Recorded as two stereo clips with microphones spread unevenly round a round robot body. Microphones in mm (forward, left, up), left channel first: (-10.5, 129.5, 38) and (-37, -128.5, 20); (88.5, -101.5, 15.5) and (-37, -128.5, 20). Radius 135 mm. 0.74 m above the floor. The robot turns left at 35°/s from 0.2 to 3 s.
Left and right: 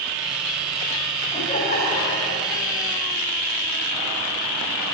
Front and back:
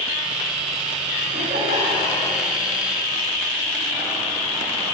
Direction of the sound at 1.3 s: 155° left.